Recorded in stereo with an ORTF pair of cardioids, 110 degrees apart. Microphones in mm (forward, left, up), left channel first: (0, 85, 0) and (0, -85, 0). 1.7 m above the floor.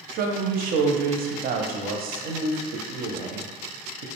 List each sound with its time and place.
0.1 s a woman speaking: 60° right, 0.5 m